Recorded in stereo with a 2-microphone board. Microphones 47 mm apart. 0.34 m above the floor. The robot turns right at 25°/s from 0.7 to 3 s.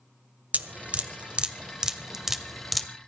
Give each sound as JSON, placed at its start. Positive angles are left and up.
{"t": 0.5, "sound": "dripping", "side_deg": -35, "distance_m": 1.0}